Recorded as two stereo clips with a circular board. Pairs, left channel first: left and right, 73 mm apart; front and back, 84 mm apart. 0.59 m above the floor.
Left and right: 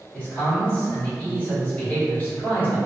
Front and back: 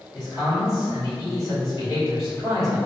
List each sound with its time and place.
0.1 s a man speaking: 35° left, 2.0 m